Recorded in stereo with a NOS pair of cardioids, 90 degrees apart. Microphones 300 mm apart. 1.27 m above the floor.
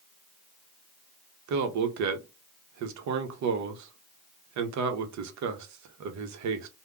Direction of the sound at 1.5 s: 65° right.